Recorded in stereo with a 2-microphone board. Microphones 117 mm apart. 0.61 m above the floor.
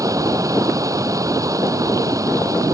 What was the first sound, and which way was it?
Running water, 30° right (ahead or behind).